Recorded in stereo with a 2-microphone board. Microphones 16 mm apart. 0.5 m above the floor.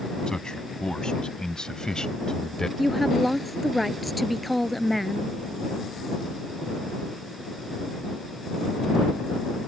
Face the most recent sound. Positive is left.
turn(degrees=0)  # may be behind; listen again after turning